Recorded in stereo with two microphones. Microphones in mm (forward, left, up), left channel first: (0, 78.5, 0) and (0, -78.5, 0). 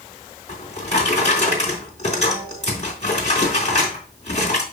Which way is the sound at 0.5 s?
45° left (ahead or behind).